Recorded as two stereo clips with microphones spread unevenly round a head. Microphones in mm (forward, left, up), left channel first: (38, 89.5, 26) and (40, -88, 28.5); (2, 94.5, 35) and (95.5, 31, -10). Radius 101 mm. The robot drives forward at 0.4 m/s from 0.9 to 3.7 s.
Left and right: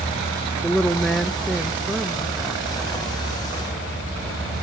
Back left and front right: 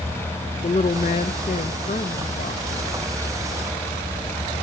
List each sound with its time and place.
0.6 s a woman speaking: straight behind, 0.5 m